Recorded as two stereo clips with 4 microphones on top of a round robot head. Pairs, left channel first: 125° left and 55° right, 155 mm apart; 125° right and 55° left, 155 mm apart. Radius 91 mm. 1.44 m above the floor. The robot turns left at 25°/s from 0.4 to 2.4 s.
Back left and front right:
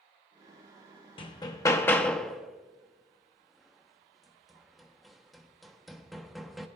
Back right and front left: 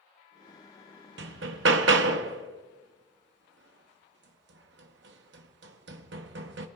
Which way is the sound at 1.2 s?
70° left.